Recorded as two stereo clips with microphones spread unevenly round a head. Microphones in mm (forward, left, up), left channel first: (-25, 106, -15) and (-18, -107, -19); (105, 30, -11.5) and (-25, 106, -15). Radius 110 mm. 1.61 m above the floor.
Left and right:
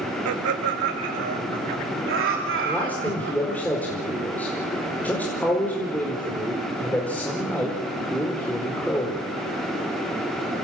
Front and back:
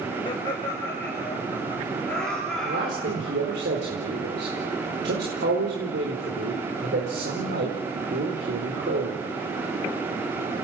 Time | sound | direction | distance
0.2 | laughter | 100° right | 2.5 m
2.6 | a man speaking | 175° left | 4.5 m